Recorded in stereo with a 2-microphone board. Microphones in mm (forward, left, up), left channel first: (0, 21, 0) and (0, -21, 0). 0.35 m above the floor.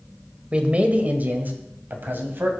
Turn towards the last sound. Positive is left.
turn(degrees=-60)  # may be behind; listen again after turning